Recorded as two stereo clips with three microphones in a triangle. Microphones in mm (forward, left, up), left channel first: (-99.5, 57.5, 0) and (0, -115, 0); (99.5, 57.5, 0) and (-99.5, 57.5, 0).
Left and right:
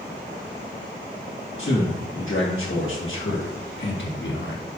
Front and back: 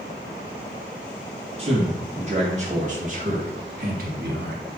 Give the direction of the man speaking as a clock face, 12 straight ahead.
8 o'clock.